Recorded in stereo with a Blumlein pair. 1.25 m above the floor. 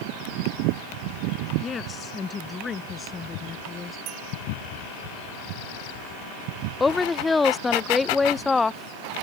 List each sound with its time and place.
1.6 s a woman speaking: 20° left
4.1 s a bell: 35° right
6.8 s a woman speaking: 10° left